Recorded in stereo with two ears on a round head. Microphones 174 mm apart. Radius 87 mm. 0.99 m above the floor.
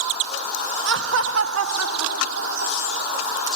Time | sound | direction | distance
0.8 | laughter | 60° right (ahead or behind) | ?